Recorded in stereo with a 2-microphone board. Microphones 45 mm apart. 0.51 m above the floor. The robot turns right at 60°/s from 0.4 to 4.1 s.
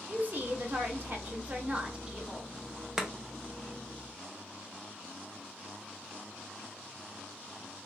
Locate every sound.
0.1 s a woman speaking: 120° right, 1.1 m; by 2.5 s 5° left, 1.1 m
3.0 s chopping: 15° right (ahead or behind), 0.7 m; by 3.1 s 10° right (ahead or behind), 0.7 m